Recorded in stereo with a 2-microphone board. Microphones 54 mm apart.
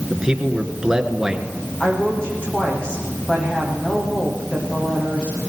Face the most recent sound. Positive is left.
turn(degrees=20)  # may be behind; listen again after turning